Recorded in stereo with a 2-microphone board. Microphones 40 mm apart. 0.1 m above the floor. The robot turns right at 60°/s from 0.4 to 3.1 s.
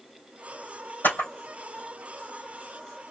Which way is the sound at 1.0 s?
60° left (ahead or behind).